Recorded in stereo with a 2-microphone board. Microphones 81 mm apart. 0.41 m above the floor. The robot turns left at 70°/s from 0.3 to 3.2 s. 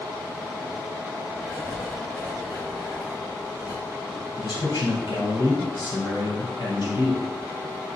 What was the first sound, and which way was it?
Writing, 115° right.